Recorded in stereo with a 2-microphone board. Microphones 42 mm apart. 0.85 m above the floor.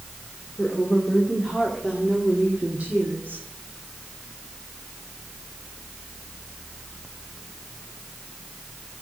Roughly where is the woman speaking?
Centre.